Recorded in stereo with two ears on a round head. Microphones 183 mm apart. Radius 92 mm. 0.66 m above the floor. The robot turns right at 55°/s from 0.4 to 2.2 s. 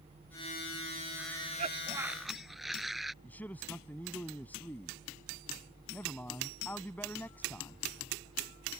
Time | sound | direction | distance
1.2 | a cough | 55° right | ?
3.2 | a man speaking | 10° left (ahead or behind) | ?